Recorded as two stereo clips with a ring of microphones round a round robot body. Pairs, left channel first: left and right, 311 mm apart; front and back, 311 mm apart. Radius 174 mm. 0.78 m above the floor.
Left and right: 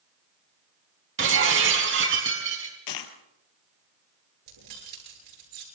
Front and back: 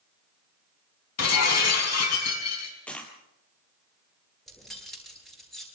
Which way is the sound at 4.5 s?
90° right.